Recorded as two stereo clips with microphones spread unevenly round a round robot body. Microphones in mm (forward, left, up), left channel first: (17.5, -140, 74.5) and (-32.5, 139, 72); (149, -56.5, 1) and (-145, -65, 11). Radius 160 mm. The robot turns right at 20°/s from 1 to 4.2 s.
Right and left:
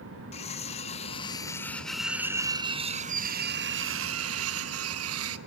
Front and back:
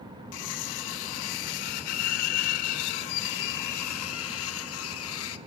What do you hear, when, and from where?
0.3 s cutlery clinking: 10° right, 0.9 m; by 5.4 s 55° left, 0.9 m